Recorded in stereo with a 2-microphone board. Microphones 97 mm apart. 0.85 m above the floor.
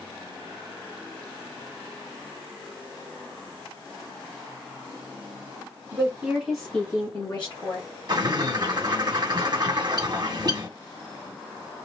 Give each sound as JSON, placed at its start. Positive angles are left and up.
{"t": 5.9, "sound": "a woman speaking", "side_deg": -35, "distance_m": 1.2}
{"t": 8.1, "sound": "a bird", "side_deg": -45, "distance_m": 1.0}